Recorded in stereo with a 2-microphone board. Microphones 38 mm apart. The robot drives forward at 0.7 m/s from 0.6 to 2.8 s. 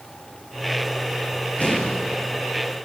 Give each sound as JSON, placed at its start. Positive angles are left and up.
{"t": 1.6, "sound": "an explosion", "side_deg": 40, "distance_m": 8.5}